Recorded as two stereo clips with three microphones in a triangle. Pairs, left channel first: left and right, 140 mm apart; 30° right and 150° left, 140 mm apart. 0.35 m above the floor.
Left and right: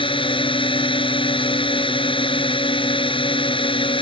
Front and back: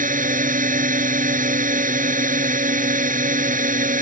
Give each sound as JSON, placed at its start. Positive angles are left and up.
{"t": 0.0, "sound": "a drone", "azimuth_deg": 140}